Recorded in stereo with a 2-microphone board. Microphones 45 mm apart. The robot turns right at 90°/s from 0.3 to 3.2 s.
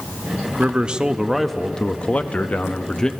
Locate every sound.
0.6 s a man speaking: 30° right (ahead or behind), 0.5 m; by 3.1 s 15° left (ahead or behind), 0.5 m